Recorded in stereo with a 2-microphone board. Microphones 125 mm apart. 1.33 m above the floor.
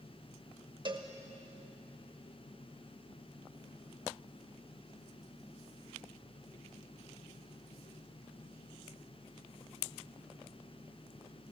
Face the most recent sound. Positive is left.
turn(degrees=-40)  # may be behind; listen again after turning